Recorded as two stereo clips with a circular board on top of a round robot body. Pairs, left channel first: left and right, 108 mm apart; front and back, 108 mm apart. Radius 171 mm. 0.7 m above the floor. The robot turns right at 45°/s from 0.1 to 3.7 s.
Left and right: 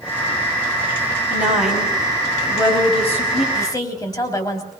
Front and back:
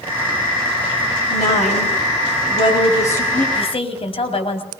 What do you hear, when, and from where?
1.3 s a woman speaking: 20° right, 7 m; by 3.5 s 80° left, 7 m
3.5 s a woman speaking: 30° left, 4 m; by 4.7 s 35° left, 4 m